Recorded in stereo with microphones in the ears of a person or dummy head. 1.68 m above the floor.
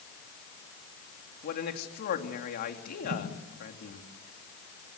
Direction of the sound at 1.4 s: 50° left (ahead or behind).